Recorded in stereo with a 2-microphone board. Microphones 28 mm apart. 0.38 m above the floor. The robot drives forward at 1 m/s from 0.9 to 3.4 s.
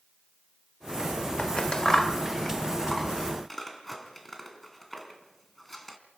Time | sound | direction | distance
1.4 | scissors | 35° left (ahead or behind) | 0.6 m